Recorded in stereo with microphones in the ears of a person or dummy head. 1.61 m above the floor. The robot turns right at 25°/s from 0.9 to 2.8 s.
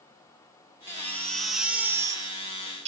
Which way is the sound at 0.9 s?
160° left.